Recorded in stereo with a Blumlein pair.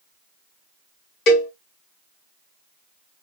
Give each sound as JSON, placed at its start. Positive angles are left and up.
{"t": 1.3, "sound": "a cowbell", "azimuth_deg": 35, "distance_m": 1.1}